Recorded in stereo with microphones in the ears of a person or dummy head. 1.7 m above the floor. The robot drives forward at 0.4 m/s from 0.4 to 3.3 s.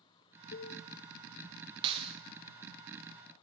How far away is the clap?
About 1.1 m.